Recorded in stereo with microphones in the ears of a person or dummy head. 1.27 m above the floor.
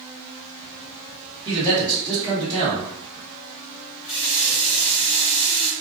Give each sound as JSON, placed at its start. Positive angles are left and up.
{"t": 1.4, "sound": "a man speaking", "side_deg": -25, "distance_m": 1.7}
{"t": 4.0, "sound": "a running tap", "side_deg": 40, "distance_m": 0.8}